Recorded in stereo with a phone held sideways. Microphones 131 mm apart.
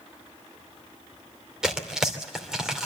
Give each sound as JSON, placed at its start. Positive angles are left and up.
{"t": 1.6, "sound": "tearing paper", "side_deg": -5, "distance_m": 2.5}